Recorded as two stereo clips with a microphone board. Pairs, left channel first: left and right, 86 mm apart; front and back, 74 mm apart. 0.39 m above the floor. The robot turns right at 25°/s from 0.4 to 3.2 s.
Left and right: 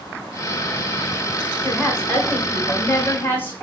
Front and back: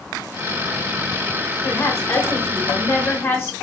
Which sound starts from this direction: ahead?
A woman speaking, at 1.6 s.